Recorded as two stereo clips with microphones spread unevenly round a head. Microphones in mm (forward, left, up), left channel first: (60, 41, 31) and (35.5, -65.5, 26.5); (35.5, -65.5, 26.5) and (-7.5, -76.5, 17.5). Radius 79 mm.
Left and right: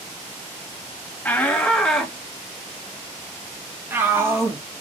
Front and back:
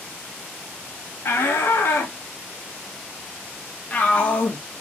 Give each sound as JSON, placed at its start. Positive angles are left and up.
{"t": 1.2, "sound": "a shout", "azimuth_deg": 5, "distance_m": 2.5}